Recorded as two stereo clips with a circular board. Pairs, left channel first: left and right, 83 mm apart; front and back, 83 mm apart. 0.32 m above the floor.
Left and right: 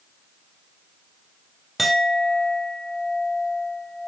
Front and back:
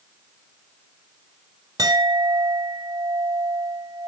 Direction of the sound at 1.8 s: Straight behind.